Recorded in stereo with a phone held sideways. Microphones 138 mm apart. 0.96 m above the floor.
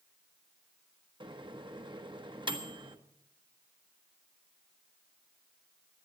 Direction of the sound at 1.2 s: 35° right (ahead or behind).